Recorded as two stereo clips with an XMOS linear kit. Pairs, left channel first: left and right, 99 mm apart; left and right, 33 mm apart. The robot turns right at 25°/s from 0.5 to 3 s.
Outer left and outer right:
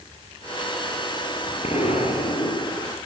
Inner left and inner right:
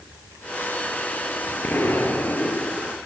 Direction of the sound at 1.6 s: 85° left.